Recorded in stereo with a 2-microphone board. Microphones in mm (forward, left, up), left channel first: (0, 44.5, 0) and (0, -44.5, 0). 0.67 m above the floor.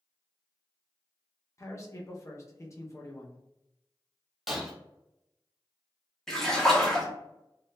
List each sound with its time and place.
1.6 s a man speaking: 35° left (ahead or behind), 0.6 m
4.5 s breaking glass: 5° right (ahead or behind), 1.0 m
6.3 s a splash: 5° left (ahead or behind), 0.8 m